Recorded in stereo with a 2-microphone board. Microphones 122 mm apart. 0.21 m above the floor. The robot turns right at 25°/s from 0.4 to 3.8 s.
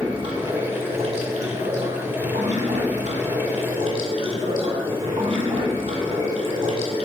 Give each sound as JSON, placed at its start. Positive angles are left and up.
{"t": 0.0, "sound": "running water", "azimuth_deg": -135, "distance_m": 1.2}